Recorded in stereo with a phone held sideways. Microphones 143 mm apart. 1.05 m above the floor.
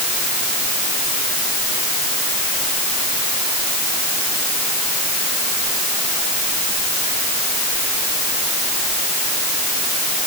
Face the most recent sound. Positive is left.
No sound to turn to.